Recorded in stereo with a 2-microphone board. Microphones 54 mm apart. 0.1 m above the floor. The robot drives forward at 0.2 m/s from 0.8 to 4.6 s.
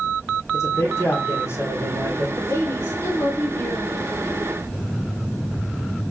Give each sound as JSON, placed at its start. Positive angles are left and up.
{"t": 0.5, "sound": "a man speaking", "side_deg": 60, "distance_m": 3.5}
{"t": 2.4, "sound": "a woman speaking", "side_deg": 60, "distance_m": 3.0}